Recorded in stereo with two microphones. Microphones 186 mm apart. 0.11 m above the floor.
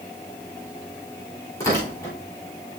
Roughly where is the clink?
No clink in this recording.